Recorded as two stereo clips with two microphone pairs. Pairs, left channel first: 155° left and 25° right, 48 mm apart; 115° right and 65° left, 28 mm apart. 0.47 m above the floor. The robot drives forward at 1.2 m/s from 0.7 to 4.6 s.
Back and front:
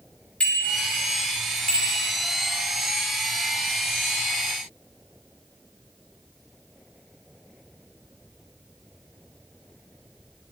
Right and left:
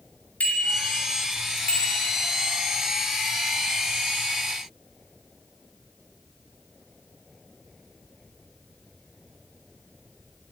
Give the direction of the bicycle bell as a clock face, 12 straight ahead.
5 o'clock.